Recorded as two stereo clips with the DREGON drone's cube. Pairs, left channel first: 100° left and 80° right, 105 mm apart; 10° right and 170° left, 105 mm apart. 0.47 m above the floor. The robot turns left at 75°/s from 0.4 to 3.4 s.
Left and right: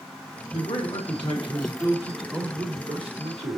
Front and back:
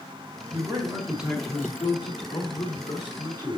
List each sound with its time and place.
0.5 s a man speaking: 140° left, 3.5 m; by 3.6 s 75° right, 3.5 m